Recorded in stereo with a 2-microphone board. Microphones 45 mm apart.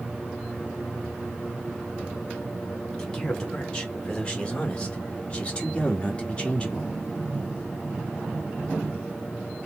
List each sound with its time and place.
3.0 s a man speaking: 15° left (ahead or behind), 2.0 m; by 6.9 s 20° left (ahead or behind), 1.3 m